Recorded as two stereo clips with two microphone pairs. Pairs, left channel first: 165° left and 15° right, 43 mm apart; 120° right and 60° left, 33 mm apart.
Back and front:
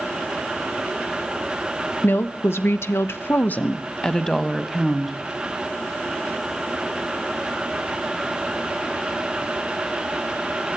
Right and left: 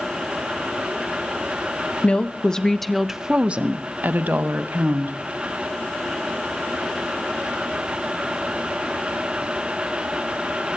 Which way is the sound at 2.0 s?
170° right.